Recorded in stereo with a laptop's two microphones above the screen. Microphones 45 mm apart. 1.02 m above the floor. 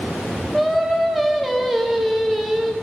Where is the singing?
Centre (ahead or behind), 0.6 m.